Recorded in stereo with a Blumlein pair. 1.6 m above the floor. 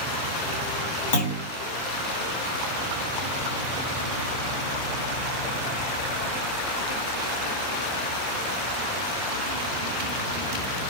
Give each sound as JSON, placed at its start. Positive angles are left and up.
{"t": 1.1, "sound": "a clunk", "azimuth_deg": 60, "distance_m": 2.0}